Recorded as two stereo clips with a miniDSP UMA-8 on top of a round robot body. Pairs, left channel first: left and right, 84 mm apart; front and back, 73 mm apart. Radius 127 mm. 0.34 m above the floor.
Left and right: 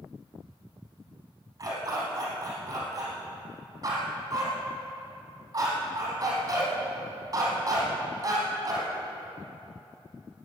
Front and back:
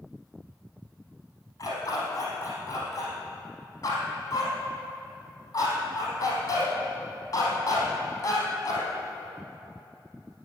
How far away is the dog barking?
About 4 m.